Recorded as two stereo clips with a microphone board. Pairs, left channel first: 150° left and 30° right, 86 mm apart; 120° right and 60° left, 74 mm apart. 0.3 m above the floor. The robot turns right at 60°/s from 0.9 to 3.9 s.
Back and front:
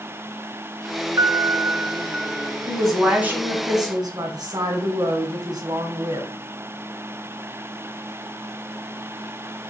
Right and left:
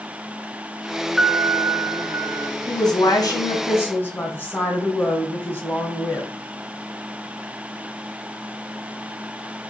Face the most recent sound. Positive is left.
turn(degrees=-60)